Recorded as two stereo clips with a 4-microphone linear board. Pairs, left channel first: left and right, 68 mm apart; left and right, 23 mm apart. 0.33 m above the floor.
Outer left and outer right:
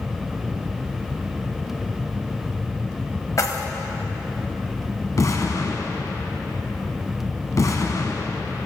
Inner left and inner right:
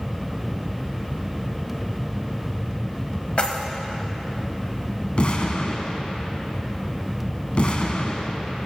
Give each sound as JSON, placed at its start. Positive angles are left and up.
{"t": 3.4, "sound": "keys jangling", "side_deg": 45, "distance_m": 1.0}
{"t": 5.2, "sound": "an explosion", "side_deg": 50, "distance_m": 1.0}